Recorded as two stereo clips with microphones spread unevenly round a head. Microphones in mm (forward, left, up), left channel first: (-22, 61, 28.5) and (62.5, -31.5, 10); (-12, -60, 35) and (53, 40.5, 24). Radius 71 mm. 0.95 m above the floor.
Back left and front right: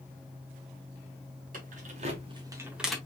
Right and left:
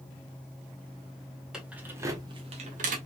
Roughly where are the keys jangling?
Ahead right.